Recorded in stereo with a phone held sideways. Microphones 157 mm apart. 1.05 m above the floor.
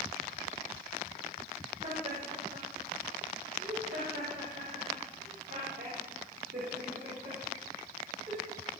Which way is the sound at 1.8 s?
70° right (ahead or behind).